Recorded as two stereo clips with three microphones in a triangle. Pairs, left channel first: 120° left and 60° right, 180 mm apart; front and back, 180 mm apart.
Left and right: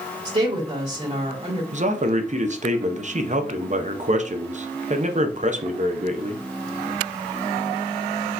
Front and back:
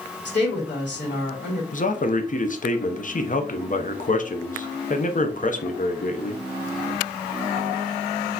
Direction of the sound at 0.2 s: 5° right.